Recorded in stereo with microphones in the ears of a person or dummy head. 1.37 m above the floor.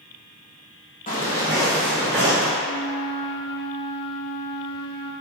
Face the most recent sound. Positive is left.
turn(degrees=25)  # may be behind; listen again after turning